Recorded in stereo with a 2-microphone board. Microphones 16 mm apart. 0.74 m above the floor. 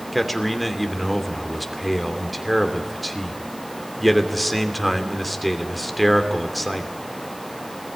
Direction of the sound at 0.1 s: Centre (ahead or behind).